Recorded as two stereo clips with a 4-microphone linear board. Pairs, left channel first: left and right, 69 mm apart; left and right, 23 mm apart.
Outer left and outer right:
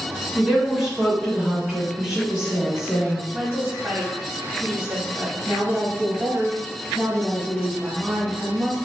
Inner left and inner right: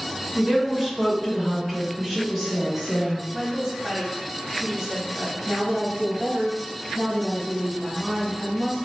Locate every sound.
0.3 s a woman speaking: 10° right (ahead or behind), 1.5 m
3.3 s a woman speaking: 25° right (ahead or behind), 1.4 m
5.5 s a woman speaking: 25° right (ahead or behind), 1.2 m